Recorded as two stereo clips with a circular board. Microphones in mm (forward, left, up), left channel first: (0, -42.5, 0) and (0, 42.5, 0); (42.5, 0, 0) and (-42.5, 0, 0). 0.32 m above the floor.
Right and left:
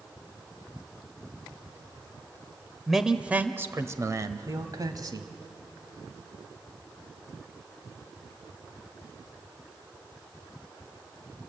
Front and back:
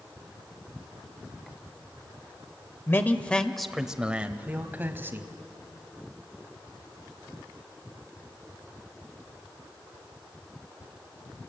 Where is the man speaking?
Straight ahead, 1.0 m; by 5.3 s 120° left, 1.9 m.